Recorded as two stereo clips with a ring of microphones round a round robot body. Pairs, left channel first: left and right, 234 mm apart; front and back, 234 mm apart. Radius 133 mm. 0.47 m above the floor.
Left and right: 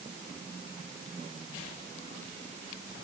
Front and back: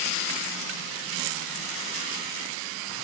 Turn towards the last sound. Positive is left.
No sound to turn to.